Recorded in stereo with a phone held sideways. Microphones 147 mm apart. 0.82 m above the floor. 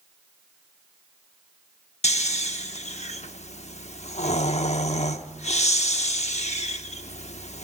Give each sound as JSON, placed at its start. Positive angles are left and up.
{"t": 2.0, "sound": "snoring", "side_deg": 50, "distance_m": 0.8}